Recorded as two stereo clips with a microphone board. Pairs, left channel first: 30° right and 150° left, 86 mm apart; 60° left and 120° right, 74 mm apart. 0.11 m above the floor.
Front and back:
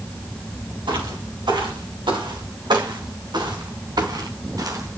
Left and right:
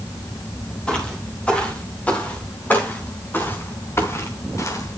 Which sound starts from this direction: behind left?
Footsteps, at 0.9 s.